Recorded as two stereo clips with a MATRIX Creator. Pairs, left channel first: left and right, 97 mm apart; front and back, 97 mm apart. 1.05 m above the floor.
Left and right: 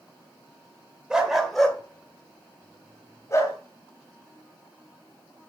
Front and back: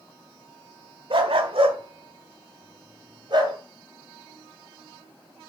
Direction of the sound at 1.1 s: 170° right.